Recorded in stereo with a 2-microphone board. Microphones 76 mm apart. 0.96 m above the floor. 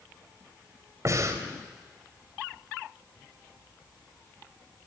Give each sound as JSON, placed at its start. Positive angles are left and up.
{"t": 1.1, "sound": "breathing", "side_deg": -45, "distance_m": 3.0}